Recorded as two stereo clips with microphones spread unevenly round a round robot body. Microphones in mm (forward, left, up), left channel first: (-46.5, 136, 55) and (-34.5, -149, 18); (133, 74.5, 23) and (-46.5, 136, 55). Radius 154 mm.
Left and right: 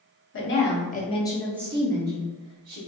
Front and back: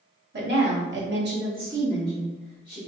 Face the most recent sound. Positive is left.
turn(degrees=-100)